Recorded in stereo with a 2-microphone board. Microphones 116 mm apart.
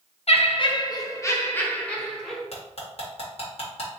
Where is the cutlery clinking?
60° left (ahead or behind), 1.4 m.